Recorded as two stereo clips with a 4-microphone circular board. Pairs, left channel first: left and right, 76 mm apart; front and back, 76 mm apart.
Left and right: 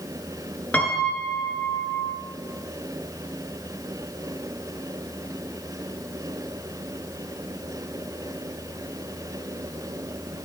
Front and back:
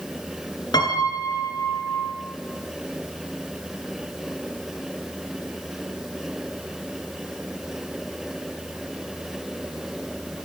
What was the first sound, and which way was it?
A piano, 20° left.